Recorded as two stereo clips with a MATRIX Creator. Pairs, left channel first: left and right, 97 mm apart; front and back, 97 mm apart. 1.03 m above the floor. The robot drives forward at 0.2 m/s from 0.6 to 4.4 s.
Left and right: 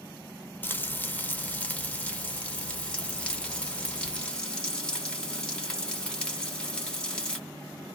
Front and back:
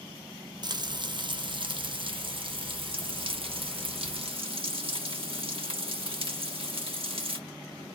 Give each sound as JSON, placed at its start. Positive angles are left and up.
{"t": 0.6, "sound": "frying", "azimuth_deg": 155, "distance_m": 0.5}